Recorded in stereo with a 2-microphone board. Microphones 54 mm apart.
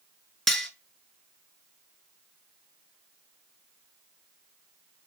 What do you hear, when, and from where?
0.5 s cutlery clinking: 5° left (ahead or behind), 0.9 m